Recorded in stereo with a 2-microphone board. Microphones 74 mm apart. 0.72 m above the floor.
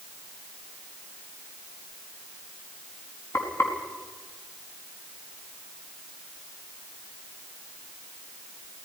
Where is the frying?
40° left (ahead or behind), 5 m.